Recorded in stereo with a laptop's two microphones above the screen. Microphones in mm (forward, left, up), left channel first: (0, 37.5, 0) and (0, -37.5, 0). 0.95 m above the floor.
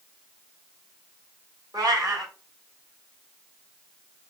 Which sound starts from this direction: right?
A cat meowing, at 1.7 s.